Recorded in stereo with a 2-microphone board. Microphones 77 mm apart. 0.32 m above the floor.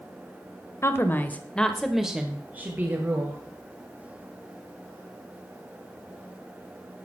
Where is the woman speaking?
35° left (ahead or behind), 1.0 m; by 3.4 s 35° right (ahead or behind), 1.5 m.